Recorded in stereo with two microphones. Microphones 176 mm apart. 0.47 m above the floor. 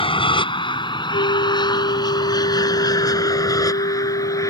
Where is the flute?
60° left (ahead or behind).